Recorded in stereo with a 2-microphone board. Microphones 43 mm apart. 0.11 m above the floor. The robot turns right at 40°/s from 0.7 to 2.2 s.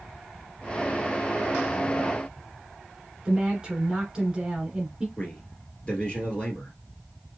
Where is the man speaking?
25° left (ahead or behind), 1.9 m.